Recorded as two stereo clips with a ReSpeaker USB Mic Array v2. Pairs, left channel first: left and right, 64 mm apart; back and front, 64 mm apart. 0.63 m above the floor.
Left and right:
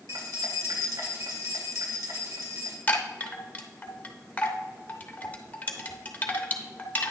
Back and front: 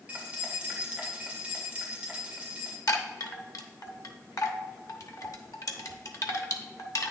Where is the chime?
155° left, 0.9 m.